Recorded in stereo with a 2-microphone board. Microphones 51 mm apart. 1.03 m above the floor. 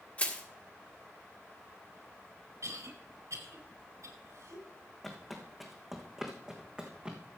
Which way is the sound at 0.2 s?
30° left (ahead or behind).